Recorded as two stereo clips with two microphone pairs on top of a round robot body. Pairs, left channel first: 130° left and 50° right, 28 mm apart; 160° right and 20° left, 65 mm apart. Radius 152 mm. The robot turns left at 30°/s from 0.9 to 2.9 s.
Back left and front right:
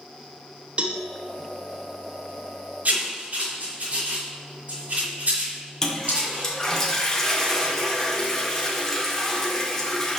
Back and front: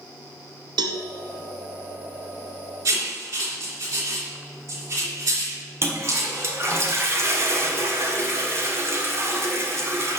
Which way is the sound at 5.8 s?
50° left.